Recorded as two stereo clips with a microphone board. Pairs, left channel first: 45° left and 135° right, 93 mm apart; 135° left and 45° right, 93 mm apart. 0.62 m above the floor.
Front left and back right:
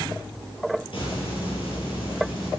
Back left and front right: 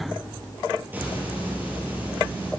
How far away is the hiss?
About 5 m.